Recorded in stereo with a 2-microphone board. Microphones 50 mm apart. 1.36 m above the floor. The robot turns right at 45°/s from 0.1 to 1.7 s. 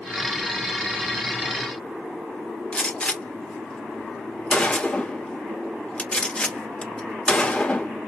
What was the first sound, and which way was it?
A gunshot, 20° left (ahead or behind).